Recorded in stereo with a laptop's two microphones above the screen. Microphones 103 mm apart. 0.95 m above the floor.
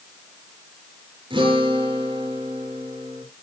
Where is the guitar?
60° right (ahead or behind), 5.5 m.